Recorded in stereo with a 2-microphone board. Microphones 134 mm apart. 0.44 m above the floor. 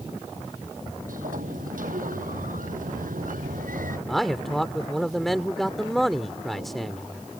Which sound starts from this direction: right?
A sliding door, at 1.1 s.